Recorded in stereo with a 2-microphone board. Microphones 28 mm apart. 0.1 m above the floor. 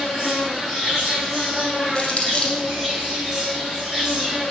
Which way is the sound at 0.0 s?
15° left (ahead or behind).